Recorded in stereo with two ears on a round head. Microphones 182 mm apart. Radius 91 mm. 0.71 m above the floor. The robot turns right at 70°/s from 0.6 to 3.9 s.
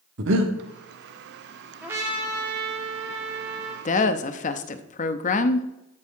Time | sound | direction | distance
0.2 | breathing | 65° right (ahead or behind) | 1.1 m
1.8 | a trumpet | 175° right | 1.6 m
3.9 | a woman speaking | 35° left (ahead or behind) | 0.7 m